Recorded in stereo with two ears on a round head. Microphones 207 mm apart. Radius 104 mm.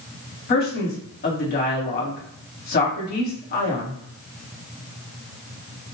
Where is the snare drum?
No snare drum in this recording.